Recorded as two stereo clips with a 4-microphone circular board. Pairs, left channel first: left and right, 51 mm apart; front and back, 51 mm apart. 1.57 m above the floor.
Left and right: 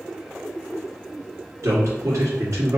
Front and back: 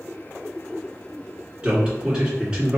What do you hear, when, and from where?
1.6 s a man speaking: 105° right, 1.9 m